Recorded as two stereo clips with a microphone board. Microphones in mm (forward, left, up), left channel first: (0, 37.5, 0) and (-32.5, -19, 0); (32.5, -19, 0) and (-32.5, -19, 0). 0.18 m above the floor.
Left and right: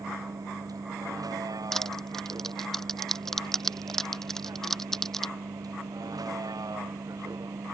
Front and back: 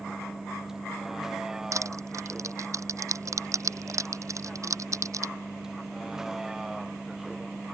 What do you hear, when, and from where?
0.0 s a vehicle: 100° right
1.7 s crushing: 145° left